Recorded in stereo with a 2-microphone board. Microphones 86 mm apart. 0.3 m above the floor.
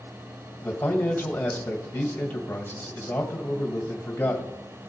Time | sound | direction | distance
0.6 | a man speaking | 25° left (ahead or behind) | 1.7 m